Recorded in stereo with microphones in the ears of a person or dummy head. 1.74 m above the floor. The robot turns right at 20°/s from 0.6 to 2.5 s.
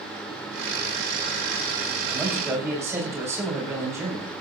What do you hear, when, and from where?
2.1 s a man speaking: 5° right (ahead or behind), 7.5 m; by 4.4 s 10° right (ahead or behind), 7.5 m